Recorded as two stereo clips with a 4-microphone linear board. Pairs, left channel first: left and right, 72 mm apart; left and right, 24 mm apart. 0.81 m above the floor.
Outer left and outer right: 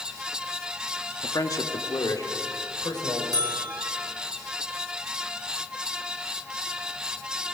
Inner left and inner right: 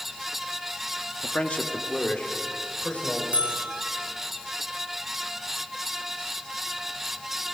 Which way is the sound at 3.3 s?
70° right (ahead or behind).